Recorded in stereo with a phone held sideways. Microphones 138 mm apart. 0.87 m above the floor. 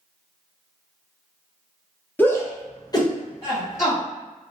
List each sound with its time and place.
2.2 s a shout: 10° left (ahead or behind), 0.7 m; by 4.0 s 20° left (ahead or behind), 1.4 m